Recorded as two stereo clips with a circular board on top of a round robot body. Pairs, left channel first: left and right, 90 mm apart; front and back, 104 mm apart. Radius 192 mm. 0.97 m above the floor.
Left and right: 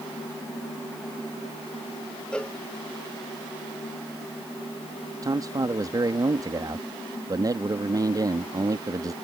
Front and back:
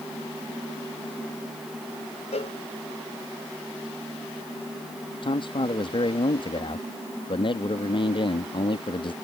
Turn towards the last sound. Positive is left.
turn(degrees=-40)